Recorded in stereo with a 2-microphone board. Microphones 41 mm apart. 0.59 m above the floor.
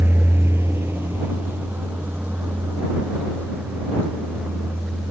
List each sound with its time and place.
0.0 s a vehicle: 75° right (ahead or behind); by 5.1 s 45° right (ahead or behind)